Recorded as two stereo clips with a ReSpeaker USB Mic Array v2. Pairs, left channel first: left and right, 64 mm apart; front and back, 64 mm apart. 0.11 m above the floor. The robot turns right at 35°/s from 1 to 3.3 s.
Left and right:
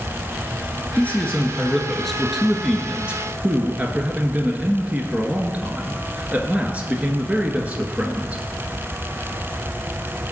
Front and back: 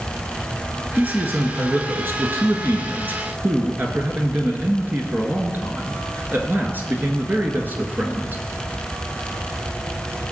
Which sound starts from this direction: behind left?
A man speaking, at 0.9 s.